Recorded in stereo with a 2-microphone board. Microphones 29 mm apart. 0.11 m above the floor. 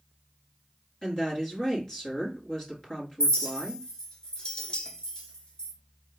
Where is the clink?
30° left (ahead or behind), 0.9 m.